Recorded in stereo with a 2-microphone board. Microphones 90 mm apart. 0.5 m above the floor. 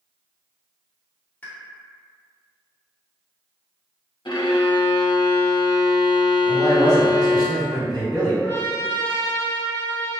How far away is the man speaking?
About 1.8 m.